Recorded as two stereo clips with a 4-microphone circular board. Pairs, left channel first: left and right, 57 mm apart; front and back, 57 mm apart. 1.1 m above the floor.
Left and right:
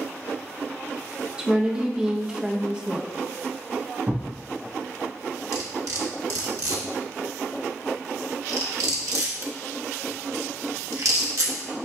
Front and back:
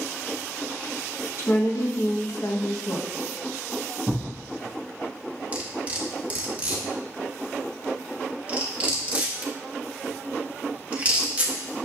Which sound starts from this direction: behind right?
Cutlery clinking, at 5.5 s.